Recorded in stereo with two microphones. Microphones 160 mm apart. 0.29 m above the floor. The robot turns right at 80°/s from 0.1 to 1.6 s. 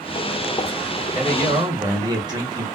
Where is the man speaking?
10° right (ahead or behind), 1.6 m; by 2.6 s 25° right (ahead or behind), 1.6 m.